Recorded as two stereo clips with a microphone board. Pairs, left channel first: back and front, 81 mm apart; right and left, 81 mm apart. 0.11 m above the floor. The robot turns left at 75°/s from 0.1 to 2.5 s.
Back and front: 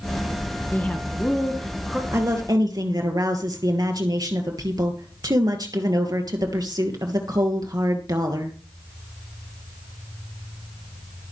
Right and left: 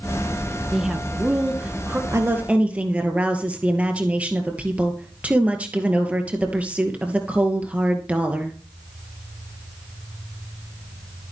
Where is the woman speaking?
50° left, 2.5 m; by 8.6 s 20° left, 2.5 m.